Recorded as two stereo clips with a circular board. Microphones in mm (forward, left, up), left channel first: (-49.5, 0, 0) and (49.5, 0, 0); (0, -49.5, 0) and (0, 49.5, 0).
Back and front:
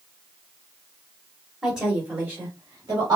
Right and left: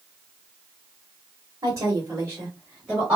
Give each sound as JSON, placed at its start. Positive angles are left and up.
{"t": 1.6, "sound": "a woman speaking", "azimuth_deg": 85, "distance_m": 1.0}